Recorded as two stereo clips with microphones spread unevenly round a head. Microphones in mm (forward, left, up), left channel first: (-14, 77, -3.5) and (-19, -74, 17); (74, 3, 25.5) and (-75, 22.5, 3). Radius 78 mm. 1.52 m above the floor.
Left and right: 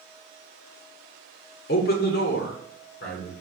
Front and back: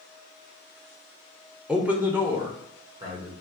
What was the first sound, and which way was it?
A man speaking, 90° left.